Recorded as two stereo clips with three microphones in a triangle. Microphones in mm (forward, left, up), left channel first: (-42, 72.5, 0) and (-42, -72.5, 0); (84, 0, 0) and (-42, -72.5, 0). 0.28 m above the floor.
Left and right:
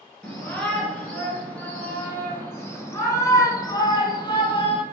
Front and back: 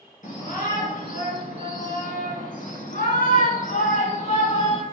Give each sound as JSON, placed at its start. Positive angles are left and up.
{"t": 0.2, "sound": "a shout", "azimuth_deg": 5, "distance_m": 3.5}